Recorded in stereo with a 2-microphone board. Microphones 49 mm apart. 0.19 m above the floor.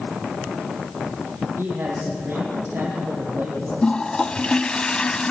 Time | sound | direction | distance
1.6 | a man speaking | 55° right (ahead or behind) | 7 m
3.8 | a toilet flushing | 20° left (ahead or behind) | 0.7 m